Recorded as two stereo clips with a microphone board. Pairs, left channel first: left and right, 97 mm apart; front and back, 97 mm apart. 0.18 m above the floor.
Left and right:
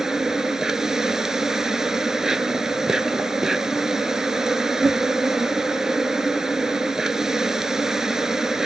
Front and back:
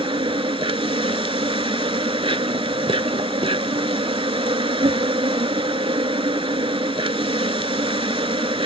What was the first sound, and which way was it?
An insect, 175° right.